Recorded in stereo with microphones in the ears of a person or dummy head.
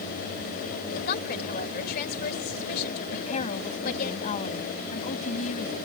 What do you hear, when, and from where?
0.9 s a woman speaking: 55° left (ahead or behind)
3.1 s a woman speaking: 40° left (ahead or behind)